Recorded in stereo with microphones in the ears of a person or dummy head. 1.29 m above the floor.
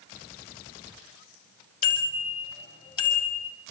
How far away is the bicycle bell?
About 5 m.